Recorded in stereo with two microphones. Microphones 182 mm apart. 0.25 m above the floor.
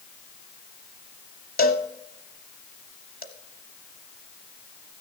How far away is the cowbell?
About 0.8 m.